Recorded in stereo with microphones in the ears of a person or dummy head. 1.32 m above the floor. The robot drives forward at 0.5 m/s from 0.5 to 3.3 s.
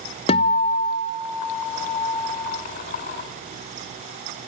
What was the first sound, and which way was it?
A guitar, 30° left (ahead or behind).